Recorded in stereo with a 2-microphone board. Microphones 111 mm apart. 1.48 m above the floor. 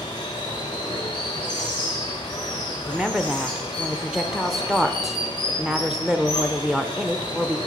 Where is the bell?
No bell in this recording.